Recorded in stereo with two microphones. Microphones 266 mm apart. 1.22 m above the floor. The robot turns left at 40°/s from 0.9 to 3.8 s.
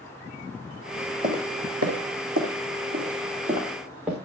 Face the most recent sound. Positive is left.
turn(degrees=-5)  # may be behind; listen again after turning